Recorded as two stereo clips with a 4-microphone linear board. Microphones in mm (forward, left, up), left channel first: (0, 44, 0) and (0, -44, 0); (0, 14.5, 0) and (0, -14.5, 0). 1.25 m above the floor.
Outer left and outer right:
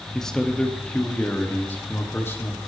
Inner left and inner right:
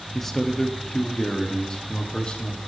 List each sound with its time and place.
0.1 s a man speaking: 5° left (ahead or behind), 2.5 m; by 2.6 s 30° left (ahead or behind), 3 m